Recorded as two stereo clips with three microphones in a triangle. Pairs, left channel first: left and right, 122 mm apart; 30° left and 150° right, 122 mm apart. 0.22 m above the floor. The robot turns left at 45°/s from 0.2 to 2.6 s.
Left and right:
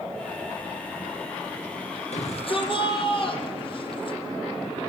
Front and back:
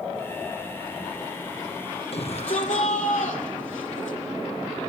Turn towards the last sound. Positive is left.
turn(degrees=45)